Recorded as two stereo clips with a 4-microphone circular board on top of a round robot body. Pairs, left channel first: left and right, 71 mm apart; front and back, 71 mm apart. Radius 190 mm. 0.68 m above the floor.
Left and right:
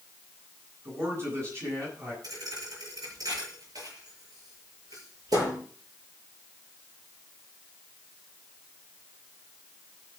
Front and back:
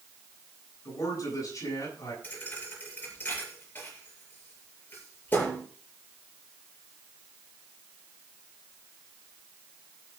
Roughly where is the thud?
Ahead right.